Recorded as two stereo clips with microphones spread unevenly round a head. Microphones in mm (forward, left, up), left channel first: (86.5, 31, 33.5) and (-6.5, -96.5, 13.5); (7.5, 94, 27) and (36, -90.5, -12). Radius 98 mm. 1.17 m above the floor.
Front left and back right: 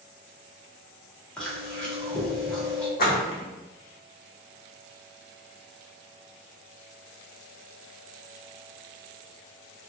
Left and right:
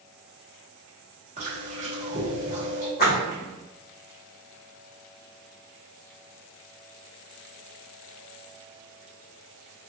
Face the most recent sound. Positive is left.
turn(degrees=60)